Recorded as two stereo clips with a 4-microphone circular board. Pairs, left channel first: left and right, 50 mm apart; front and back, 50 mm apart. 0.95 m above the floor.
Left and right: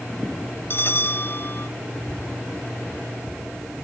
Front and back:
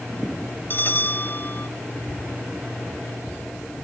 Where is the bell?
50° left.